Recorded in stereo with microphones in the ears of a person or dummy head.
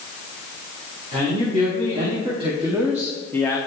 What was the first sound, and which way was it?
A man speaking, 40° right (ahead or behind).